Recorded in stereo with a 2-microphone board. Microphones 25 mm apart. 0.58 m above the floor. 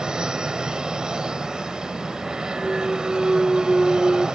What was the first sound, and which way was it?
An aircraft, 30° right (ahead or behind).